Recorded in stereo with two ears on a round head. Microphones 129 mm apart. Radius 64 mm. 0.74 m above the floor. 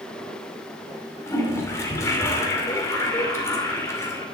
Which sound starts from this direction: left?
A toilet flushing, at 1.3 s.